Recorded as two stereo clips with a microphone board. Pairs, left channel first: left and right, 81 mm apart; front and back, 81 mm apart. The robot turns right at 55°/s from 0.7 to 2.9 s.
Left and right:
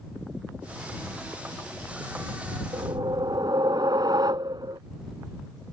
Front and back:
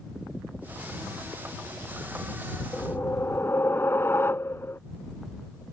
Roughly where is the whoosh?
Right.